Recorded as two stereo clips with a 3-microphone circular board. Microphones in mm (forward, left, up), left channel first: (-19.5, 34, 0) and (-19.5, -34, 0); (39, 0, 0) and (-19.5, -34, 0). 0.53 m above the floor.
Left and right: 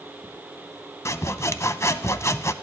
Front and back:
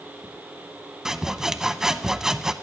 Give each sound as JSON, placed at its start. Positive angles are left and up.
{"t": 1.1, "sound": "sawing", "azimuth_deg": 130, "distance_m": 0.6}